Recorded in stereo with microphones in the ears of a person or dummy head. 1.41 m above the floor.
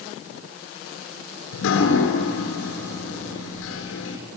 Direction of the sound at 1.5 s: 80° left.